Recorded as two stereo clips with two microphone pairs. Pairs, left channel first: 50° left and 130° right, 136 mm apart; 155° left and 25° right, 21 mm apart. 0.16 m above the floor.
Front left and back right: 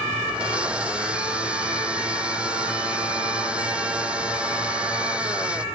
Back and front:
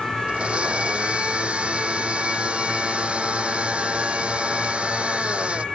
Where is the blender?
50° right.